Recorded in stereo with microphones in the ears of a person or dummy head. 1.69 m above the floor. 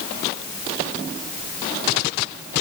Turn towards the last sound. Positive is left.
No sound to turn to.